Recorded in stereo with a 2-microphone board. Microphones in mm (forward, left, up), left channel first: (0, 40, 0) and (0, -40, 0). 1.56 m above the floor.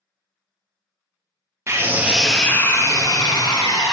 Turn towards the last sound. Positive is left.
turn(degrees=65)  # may be behind; listen again after turning